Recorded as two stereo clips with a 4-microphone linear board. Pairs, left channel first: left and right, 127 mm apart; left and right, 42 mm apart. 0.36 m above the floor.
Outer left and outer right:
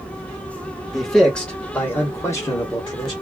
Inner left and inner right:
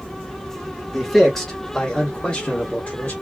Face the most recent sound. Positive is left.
turn(degrees=35)  # may be behind; listen again after turning